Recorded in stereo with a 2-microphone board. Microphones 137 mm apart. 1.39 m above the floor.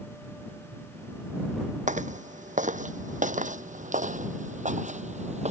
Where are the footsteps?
65° right (ahead or behind); by 5.5 s 55° right (ahead or behind).